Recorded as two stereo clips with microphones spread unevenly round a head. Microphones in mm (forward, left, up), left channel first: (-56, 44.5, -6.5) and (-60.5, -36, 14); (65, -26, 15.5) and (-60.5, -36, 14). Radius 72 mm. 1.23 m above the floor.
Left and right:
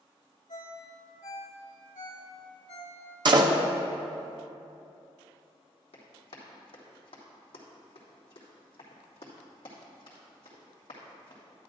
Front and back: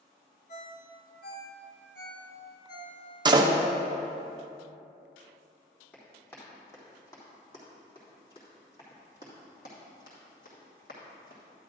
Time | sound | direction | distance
0.5 | a ringtone | 45° left | 1.8 m
3.2 | a door slam | 120° right | 0.8 m
5.9 | running footsteps | 85° left | 3 m